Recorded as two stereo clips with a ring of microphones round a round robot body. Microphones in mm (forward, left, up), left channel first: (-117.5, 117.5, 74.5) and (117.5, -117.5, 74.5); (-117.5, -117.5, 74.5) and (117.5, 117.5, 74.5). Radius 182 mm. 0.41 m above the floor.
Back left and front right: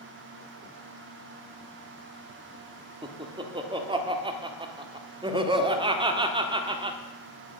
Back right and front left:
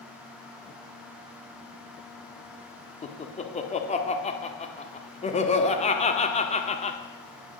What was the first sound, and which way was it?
Laughter, 100° right.